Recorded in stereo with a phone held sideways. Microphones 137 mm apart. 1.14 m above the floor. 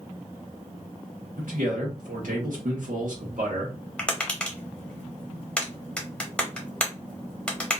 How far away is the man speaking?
About 1.1 m.